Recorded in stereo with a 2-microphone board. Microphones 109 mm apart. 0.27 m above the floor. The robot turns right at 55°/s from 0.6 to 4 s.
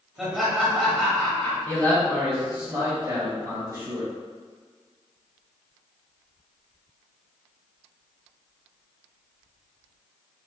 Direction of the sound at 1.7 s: 150° left.